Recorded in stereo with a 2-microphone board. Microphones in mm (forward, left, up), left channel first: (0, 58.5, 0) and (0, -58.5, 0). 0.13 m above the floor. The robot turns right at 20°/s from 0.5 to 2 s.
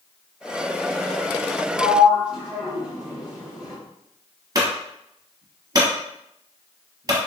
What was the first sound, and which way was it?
A sliding door, 5° right (ahead or behind).